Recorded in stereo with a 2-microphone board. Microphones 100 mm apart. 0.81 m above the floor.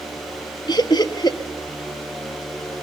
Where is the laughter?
45° left (ahead or behind), 1.3 m.